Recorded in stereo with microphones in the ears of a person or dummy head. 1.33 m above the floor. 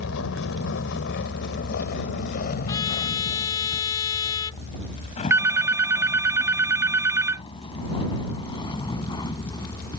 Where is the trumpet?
20° left (ahead or behind).